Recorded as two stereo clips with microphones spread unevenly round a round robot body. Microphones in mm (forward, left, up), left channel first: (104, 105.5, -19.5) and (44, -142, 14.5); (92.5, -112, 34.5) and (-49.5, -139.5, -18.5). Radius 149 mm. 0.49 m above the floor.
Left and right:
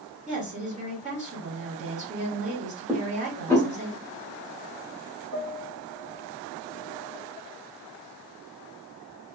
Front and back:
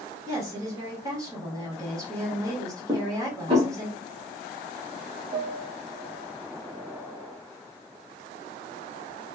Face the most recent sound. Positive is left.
turn(degrees=-140)